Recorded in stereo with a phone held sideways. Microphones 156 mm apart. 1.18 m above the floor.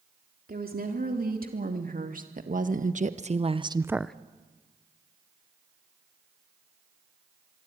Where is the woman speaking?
75° right (ahead or behind), 3.5 m; by 4.2 s 5° left (ahead or behind), 0.6 m.